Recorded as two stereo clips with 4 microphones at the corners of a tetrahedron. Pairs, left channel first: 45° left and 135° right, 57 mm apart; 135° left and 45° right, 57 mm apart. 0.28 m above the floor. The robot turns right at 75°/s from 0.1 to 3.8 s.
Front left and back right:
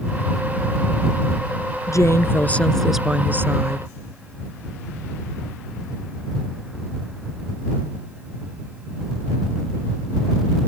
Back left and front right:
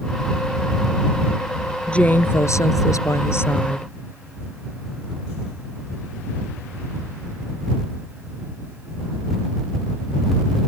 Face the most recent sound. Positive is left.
turn(degrees=-155)